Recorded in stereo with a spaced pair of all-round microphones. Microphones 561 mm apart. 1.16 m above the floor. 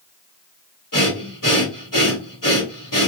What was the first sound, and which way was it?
Breathing, 35° left (ahead or behind).